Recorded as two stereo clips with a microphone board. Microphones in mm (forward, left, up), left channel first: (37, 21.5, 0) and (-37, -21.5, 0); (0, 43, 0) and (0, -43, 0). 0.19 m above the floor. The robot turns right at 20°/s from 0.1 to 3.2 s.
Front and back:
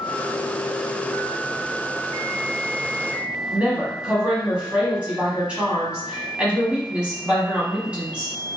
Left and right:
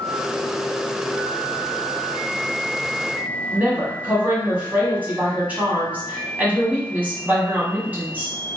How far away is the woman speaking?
About 1.0 m.